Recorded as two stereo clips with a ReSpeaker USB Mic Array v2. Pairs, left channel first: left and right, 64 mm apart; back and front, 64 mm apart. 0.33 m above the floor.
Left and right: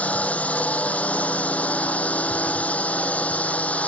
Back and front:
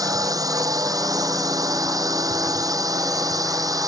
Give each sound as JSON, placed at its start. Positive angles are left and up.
{"t": 0.0, "sound": "a drone", "azimuth_deg": 25}